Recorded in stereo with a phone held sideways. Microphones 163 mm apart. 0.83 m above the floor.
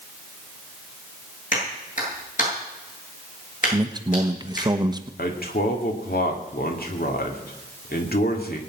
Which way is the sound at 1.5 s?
55° left (ahead or behind).